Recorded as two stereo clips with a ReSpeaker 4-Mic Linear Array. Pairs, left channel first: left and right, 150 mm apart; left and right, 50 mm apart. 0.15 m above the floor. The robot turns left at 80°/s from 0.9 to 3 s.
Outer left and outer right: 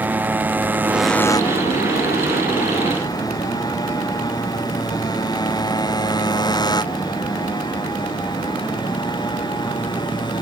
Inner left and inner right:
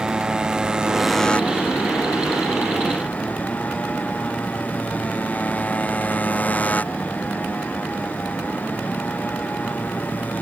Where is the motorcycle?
10° right (ahead or behind); by 10.4 s 30° left (ahead or behind).